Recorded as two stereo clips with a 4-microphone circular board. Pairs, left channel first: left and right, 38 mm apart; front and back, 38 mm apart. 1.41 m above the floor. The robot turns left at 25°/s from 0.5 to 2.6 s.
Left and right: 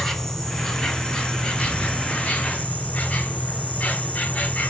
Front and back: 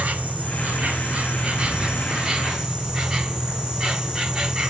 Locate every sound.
0.0 s an insect: 160° left, 1.0 m; by 4.7 s 110° left, 1.0 m